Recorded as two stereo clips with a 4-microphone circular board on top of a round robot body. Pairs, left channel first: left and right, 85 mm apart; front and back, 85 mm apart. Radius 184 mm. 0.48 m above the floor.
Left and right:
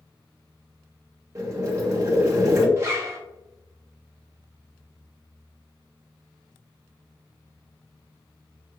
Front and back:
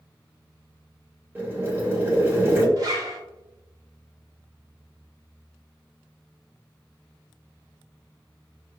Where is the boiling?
125° right, 1.8 m.